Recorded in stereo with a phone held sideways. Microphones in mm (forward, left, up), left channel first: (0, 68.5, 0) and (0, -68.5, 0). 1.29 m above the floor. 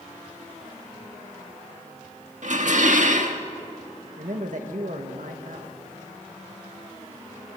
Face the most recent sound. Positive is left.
turn(degrees=-65)  # may be behind; listen again after turning